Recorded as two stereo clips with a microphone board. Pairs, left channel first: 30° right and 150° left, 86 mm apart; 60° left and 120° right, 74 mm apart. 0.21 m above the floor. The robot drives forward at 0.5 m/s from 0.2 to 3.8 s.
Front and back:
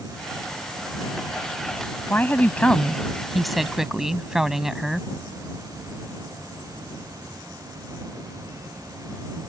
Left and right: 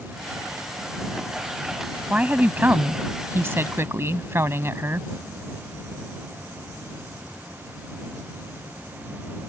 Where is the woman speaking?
65° right; by 5.1 s 130° right.